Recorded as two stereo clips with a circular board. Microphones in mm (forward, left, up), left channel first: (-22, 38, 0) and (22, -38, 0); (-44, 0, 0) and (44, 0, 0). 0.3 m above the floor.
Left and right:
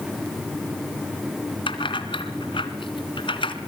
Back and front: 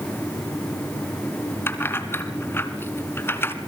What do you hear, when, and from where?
1.7 s keys jangling: 115° left, 2 m